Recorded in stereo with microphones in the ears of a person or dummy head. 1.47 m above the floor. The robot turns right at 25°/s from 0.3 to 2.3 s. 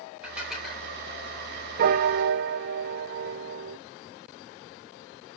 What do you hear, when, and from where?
0.2 s dishes clattering: 5° right (ahead or behind), 4.5 m; by 0.9 s 10° left (ahead or behind), 4.5 m
1.8 s a piano: 55° right (ahead or behind), 0.6 m; by 3.8 s 65° right (ahead or behind), 0.6 m